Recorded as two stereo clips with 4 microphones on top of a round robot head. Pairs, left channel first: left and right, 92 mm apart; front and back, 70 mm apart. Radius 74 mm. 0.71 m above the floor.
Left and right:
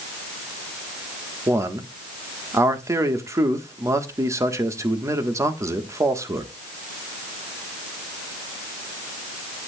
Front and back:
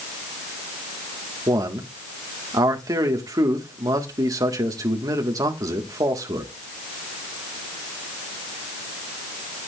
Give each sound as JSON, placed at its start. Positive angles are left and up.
{"t": 1.5, "sound": "a man speaking", "azimuth_deg": -145, "distance_m": 1.6}